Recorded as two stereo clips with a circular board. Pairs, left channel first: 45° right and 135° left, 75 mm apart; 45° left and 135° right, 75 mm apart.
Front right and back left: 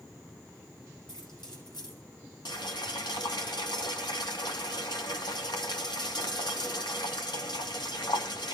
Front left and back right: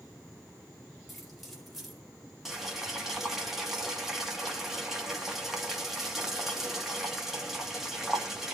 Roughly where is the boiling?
Ahead right.